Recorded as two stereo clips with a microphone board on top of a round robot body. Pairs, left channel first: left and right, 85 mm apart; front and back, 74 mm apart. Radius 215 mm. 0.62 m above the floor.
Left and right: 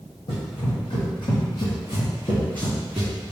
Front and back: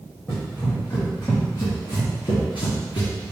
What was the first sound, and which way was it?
Running footsteps, 70° left.